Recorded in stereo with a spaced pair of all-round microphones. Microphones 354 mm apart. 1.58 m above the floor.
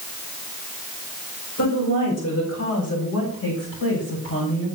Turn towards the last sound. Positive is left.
turn(degrees=35)  # may be behind; listen again after turning